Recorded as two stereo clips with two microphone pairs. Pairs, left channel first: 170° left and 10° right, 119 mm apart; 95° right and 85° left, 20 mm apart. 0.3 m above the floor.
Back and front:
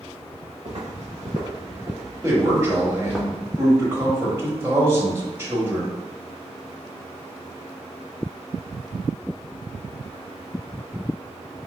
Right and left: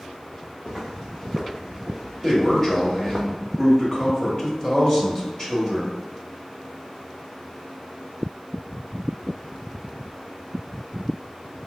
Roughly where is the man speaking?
Ahead right.